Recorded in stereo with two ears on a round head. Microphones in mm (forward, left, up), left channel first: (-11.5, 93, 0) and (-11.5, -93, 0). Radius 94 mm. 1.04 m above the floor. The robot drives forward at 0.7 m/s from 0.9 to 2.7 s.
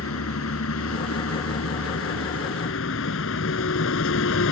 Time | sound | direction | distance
0.0 | a vehicle | 80° left | ?